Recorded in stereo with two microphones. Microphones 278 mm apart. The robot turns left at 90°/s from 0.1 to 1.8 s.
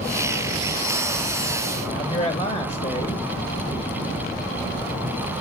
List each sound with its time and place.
1.9 s a man speaking: 25° left (ahead or behind), 1.1 m